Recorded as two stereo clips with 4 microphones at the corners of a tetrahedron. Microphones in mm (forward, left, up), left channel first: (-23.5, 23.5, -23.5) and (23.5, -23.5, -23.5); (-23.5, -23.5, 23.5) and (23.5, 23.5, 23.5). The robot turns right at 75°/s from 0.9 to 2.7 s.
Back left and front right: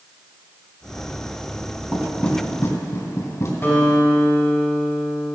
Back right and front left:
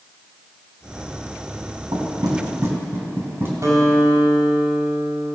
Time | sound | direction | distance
1.9 | knocking | 35° left | 2.5 m
3.6 | a guitar | 80° left | 3 m